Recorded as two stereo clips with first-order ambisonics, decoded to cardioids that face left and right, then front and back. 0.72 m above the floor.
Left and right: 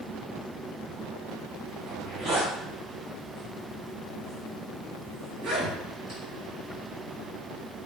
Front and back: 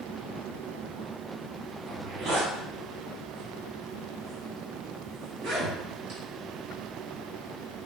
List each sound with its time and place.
1.9 s a zipper: 155° right, 1.6 m